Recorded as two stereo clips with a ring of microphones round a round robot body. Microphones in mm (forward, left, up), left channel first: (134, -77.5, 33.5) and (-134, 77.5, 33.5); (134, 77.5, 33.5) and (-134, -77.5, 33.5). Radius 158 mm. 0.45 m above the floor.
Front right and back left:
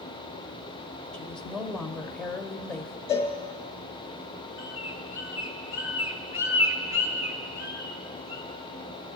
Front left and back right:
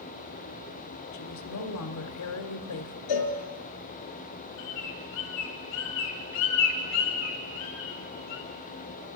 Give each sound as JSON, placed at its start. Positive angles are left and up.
{"t": 1.1, "sound": "a woman speaking", "azimuth_deg": 55, "distance_m": 1.6}
{"t": 3.1, "sound": "a cowbell", "azimuth_deg": 40, "distance_m": 3.5}
{"t": 4.6, "sound": "a bird", "azimuth_deg": 70, "distance_m": 4.0}